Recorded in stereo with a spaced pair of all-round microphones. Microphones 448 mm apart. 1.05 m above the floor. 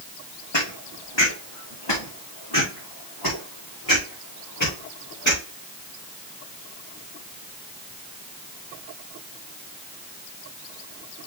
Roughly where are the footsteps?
Left.